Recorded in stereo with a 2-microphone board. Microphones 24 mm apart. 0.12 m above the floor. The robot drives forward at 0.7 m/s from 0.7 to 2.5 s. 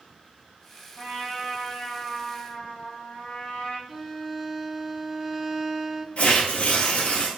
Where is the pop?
No pop in this recording.